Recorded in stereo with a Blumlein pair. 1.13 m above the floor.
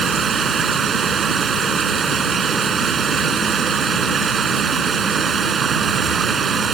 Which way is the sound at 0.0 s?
20° right.